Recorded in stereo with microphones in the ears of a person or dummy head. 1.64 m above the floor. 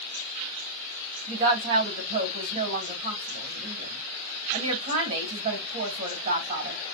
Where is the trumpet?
I don't hear a trumpet.